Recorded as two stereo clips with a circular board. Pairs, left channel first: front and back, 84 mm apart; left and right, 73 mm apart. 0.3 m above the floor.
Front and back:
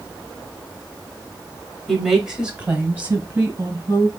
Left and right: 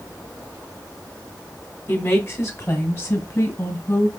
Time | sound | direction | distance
1.9 | a woman speaking | 85° left | 1.2 m